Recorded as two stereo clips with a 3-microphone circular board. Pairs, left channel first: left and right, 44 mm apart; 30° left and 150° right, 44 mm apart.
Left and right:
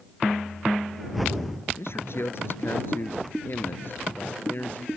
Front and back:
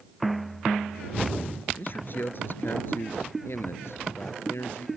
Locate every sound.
1.8 s a man speaking: 70° left; by 4.9 s 45° left